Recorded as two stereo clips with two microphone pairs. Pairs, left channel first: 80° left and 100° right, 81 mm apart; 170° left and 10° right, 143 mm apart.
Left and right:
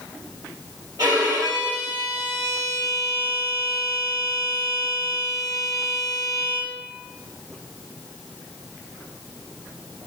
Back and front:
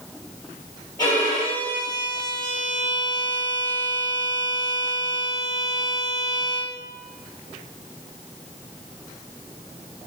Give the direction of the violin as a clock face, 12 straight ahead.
4 o'clock.